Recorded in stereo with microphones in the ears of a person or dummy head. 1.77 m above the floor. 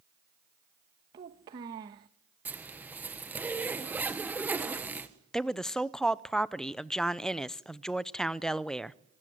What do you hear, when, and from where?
1.1 s a child speaking: 20° right (ahead or behind), 1.1 m
2.5 s a zipper: 10° right (ahead or behind), 1.6 m
5.3 s a woman speaking: 5° left (ahead or behind), 0.6 m